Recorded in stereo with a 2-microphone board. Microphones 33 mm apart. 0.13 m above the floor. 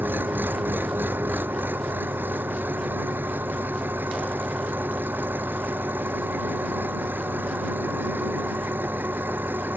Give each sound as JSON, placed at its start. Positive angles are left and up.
{"t": 0.0, "sound": "an engine running", "side_deg": -75}